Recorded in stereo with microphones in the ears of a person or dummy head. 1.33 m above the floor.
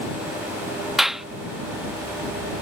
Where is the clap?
Centre (ahead or behind).